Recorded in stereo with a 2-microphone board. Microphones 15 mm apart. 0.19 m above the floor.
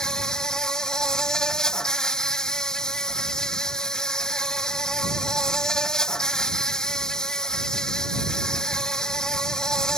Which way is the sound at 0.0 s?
45° left (ahead or behind).